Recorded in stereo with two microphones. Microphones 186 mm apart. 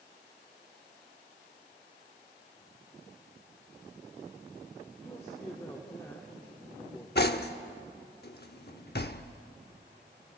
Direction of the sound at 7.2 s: 60° left (ahead or behind).